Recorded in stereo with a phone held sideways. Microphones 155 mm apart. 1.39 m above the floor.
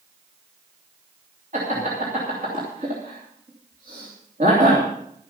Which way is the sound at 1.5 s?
55° right (ahead or behind).